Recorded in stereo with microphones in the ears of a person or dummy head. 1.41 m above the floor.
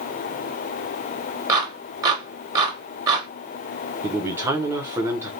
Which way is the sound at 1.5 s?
15° right (ahead or behind).